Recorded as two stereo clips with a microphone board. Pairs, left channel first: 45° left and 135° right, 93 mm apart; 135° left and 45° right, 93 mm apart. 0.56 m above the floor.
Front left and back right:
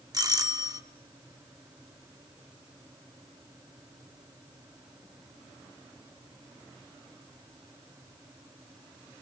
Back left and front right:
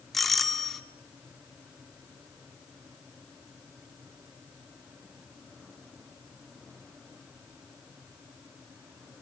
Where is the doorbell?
140° right, 1.4 m.